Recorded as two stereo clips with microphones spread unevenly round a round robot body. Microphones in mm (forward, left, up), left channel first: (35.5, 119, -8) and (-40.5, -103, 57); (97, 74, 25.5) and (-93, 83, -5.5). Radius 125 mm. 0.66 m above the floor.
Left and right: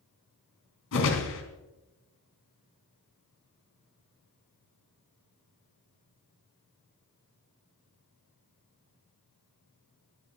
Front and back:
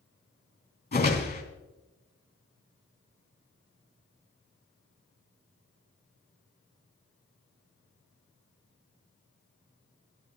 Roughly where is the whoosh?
Ahead left.